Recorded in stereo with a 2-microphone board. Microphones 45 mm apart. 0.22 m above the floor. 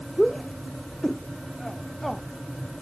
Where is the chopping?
I don't hear chopping.